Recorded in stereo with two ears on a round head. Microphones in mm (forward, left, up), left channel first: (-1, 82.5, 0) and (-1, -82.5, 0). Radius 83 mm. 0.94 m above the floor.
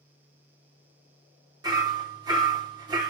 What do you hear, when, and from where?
1.6 s hammering: 25° right (ahead or behind), 2.5 m